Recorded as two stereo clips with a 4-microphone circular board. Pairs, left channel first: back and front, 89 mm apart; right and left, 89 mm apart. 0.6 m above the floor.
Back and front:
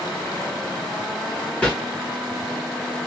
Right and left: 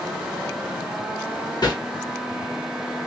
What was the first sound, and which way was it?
A whoosh, 105° right.